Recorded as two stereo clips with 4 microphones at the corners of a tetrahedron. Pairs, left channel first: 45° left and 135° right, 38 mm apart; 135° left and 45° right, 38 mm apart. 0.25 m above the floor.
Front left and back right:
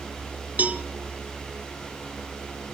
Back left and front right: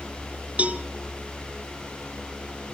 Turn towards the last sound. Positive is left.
turn(degrees=-95)